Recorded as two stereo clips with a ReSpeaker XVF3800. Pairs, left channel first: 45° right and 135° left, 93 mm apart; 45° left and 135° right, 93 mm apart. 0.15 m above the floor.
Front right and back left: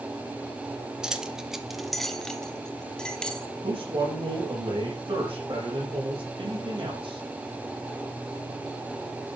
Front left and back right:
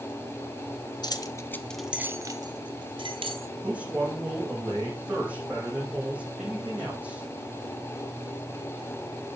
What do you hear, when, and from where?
1.0 s keys jangling: 55° left, 1.2 m; by 3.5 s 125° right, 2 m
3.6 s a man speaking: 150° left, 5.5 m